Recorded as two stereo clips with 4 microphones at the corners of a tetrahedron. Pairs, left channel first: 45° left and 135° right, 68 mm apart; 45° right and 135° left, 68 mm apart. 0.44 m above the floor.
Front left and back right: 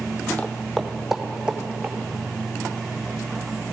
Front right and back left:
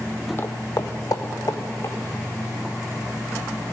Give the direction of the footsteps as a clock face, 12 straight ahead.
12 o'clock.